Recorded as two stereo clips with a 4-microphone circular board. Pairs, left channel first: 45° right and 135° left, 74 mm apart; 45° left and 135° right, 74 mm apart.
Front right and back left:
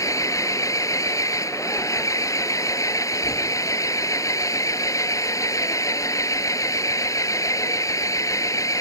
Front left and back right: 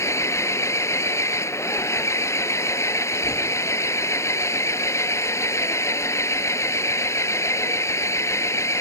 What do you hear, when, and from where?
0.0 s an engine running: 5° right